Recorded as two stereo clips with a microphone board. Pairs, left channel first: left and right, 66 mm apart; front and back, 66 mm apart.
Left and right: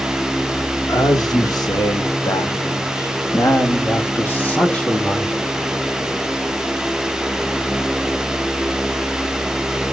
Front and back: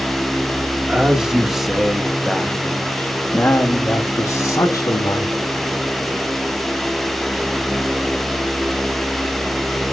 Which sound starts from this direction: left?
A man speaking, at 0.9 s.